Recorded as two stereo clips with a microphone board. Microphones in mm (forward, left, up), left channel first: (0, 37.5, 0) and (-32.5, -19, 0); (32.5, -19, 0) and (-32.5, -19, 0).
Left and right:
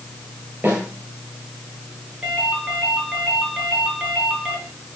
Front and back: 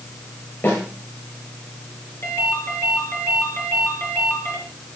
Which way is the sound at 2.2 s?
45° right.